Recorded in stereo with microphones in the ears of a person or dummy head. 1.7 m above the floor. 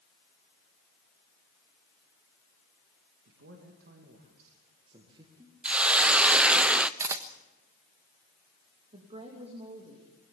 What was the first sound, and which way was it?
A man speaking, 65° right (ahead or behind).